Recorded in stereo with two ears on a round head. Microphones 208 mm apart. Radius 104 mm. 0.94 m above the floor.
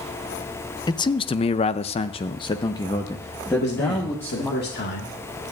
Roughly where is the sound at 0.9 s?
Centre.